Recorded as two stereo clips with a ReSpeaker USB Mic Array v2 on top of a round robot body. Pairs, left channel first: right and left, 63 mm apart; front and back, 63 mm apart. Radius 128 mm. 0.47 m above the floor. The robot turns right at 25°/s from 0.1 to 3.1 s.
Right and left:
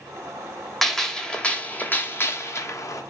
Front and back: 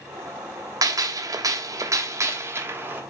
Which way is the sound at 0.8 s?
175° right.